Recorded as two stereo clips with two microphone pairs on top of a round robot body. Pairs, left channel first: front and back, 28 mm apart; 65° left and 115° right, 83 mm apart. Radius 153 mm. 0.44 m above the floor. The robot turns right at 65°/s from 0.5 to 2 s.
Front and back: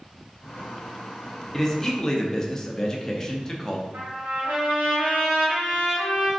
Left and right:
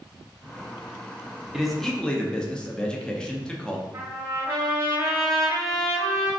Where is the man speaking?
45° right, 0.8 m; by 3.8 s 15° right, 0.8 m.